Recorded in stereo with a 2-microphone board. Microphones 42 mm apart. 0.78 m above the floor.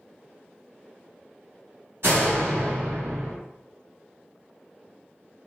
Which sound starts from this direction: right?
A door slam, at 2.0 s.